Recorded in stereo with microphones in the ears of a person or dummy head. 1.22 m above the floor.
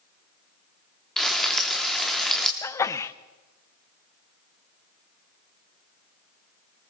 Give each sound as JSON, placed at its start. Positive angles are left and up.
{"t": 1.2, "sound": "frying", "side_deg": 0, "distance_m": 0.9}
{"t": 2.6, "sound": "a sneeze", "side_deg": 15, "distance_m": 0.7}